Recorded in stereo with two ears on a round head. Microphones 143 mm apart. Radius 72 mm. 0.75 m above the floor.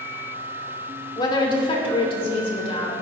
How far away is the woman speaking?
About 2 m.